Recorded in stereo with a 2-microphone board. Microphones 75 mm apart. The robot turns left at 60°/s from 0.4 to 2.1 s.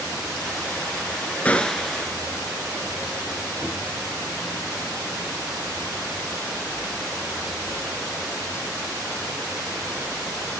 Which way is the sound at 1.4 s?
25° left.